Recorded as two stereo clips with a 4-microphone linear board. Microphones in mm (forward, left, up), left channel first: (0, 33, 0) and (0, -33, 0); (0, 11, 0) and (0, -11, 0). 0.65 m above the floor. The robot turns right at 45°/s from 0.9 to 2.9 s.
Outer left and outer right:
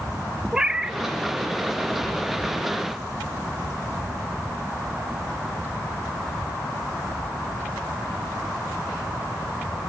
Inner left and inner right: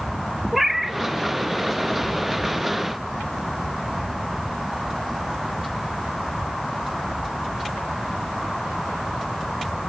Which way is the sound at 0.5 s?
10° right (ahead or behind).